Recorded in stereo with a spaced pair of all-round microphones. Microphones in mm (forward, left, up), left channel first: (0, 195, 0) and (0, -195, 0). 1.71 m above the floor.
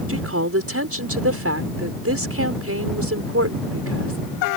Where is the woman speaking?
35° right (ahead or behind).